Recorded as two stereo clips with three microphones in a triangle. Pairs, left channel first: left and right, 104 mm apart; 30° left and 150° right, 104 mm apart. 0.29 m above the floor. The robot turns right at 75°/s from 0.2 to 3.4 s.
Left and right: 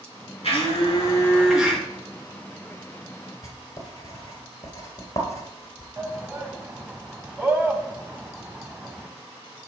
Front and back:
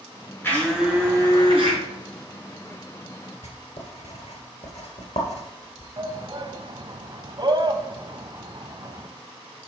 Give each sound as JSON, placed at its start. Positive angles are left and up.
{"t": 0.4, "sound": "a blender", "azimuth_deg": 100, "distance_m": 4.0}
{"t": 3.4, "sound": "writing", "azimuth_deg": 30, "distance_m": 2.5}
{"t": 6.0, "sound": "a shout", "azimuth_deg": -155, "distance_m": 1.5}